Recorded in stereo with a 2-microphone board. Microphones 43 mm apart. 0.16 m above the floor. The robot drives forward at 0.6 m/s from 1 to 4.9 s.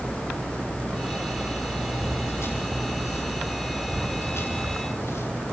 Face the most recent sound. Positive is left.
turn(degrees=85)